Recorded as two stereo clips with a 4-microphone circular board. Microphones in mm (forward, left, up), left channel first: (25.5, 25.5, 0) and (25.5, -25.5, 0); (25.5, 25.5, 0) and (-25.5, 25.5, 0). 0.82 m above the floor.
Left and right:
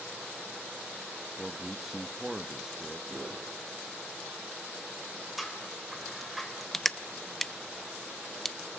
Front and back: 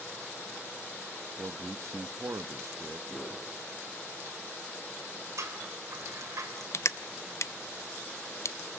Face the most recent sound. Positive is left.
turn(degrees=5)